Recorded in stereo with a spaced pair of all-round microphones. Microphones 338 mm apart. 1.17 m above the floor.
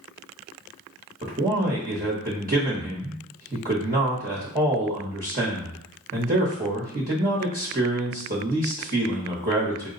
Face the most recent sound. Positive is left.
turn(degrees=-25)  # may be behind; listen again after turning